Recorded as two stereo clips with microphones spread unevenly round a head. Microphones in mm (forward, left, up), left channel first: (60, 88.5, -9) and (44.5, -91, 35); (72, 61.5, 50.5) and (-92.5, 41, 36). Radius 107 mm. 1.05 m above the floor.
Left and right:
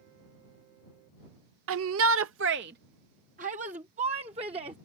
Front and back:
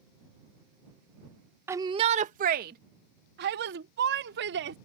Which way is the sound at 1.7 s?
100° right.